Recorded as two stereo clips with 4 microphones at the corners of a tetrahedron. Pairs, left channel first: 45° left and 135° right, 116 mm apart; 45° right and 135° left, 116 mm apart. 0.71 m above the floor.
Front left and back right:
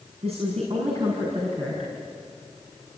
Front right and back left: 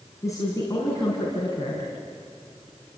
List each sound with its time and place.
0.2 s a woman speaking: 110° right, 5.5 m